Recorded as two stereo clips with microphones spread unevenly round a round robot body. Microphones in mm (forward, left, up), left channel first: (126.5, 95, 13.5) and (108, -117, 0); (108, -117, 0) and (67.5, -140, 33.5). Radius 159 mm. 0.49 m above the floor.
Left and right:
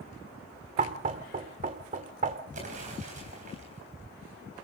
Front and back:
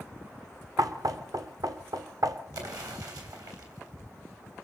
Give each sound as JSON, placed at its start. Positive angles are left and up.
{"t": 0.8, "sound": "knocking", "azimuth_deg": -135, "distance_m": 1.4}
{"t": 2.5, "sound": "an explosion", "azimuth_deg": -160, "distance_m": 3.0}